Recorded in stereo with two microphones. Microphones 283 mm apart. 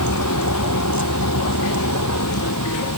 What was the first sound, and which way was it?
A vehicle, 80° left.